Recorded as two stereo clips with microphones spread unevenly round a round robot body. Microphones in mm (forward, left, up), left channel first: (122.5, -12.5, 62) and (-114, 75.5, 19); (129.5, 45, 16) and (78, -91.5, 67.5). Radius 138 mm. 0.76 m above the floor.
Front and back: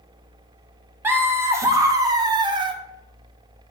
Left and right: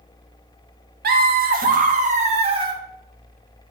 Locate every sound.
1.0 s laughter: 125° right, 1.6 m; by 2.8 s straight behind, 1.1 m